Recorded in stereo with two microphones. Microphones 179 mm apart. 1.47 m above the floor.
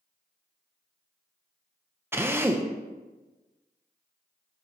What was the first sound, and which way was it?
A drill, 15° right (ahead or behind).